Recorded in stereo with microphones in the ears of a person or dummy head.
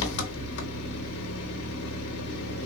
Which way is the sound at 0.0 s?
65° left (ahead or behind).